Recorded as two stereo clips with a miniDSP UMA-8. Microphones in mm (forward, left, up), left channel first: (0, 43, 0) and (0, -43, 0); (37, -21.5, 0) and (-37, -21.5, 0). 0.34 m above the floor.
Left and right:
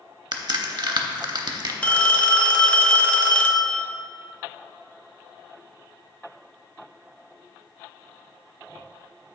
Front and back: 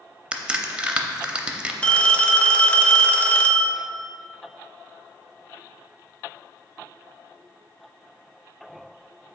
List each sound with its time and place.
0.3 s a crack: 105° right, 0.6 m
1.8 s a phone ringing: 45° left, 0.5 m